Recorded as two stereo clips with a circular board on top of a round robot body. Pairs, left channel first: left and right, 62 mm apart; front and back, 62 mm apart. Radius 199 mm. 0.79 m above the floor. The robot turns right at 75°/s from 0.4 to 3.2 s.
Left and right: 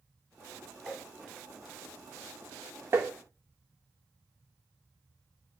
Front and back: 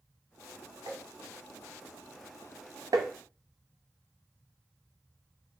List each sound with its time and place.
0.9 s tapping: 175° right, 0.7 m; by 1.0 s 160° right, 0.7 m
2.9 s tapping: 145° right, 0.6 m; by 3.1 s 135° right, 0.6 m